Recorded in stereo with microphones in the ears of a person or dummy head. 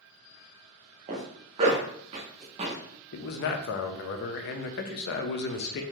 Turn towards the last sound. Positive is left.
turn(degrees=55)  # may be behind; listen again after turning